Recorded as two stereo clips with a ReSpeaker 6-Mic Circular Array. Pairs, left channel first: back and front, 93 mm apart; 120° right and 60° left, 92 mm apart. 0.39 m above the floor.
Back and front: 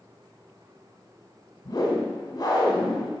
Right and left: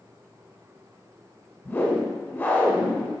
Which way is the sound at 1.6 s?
175° right.